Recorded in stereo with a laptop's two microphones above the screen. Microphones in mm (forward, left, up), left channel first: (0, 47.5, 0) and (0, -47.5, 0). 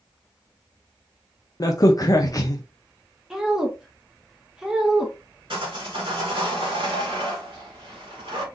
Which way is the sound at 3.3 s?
5° right (ahead or behind).